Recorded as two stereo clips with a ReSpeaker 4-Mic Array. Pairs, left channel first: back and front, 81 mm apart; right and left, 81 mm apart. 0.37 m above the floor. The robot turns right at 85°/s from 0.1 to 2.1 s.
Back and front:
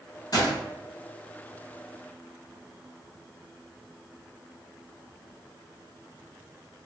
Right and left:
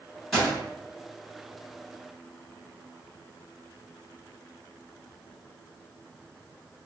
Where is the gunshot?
Straight behind, 1.8 m; by 0.6 s 155° right, 1.8 m.